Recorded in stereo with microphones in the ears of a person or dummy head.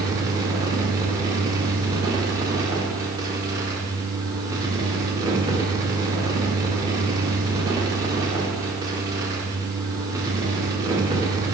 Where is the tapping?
No tapping in this recording.